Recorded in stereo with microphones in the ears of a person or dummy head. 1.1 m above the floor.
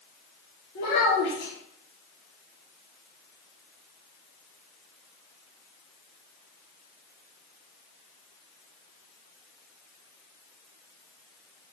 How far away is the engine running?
No engine running in this recording.